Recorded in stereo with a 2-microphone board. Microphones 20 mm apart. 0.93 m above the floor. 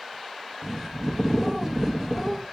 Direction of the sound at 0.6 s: 20° right (ahead or behind).